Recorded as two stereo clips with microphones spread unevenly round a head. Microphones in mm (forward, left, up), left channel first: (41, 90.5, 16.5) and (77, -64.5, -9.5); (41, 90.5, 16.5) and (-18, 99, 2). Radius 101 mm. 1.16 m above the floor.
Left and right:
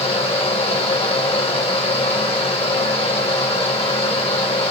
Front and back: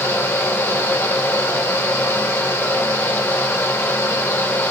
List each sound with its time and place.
0.0 s a fan: 45° left, 2 m